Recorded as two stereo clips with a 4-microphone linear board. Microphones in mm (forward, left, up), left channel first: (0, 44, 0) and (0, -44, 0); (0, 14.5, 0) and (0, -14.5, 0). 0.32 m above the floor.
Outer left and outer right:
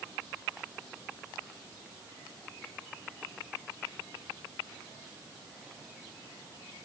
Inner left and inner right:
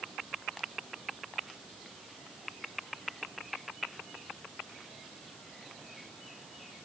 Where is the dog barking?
I don't hear a dog barking.